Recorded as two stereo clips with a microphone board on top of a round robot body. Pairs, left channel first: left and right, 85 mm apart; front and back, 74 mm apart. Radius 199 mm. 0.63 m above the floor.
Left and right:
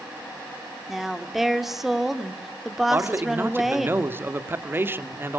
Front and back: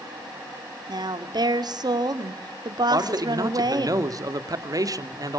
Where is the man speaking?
150° right, 2.5 m.